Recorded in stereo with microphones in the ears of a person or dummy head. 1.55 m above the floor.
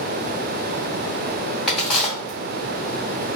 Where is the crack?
5° left (ahead or behind), 0.8 m.